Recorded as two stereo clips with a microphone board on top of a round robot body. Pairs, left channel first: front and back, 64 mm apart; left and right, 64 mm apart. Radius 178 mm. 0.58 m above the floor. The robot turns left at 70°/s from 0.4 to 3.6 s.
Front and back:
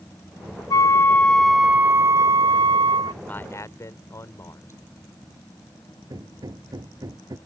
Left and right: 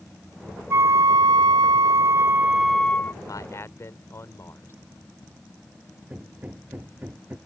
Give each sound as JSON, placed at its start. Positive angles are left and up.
{"t": 0.7, "sound": "a flute", "azimuth_deg": -35}
{"t": 3.2, "sound": "a man speaking", "azimuth_deg": 65}
{"t": 6.1, "sound": "hammering", "azimuth_deg": -155}